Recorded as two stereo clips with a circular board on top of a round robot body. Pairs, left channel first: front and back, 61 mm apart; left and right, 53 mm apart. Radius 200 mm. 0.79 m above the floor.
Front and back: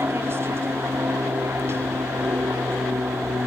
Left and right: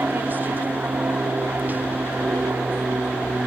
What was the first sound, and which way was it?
An aircraft, 140° right.